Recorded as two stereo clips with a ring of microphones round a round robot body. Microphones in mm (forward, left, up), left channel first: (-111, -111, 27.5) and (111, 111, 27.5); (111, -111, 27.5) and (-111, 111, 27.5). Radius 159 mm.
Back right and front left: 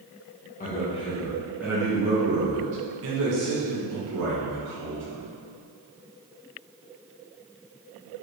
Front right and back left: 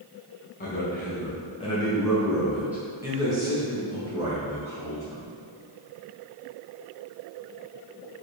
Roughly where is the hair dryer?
I don't hear a hair dryer.